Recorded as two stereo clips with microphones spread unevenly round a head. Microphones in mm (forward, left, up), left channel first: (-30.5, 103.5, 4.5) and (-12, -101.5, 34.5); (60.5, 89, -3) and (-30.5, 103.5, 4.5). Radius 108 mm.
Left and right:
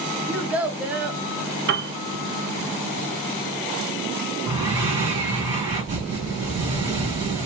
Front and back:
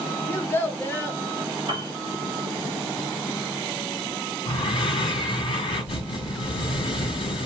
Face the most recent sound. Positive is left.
turn(degrees=-20)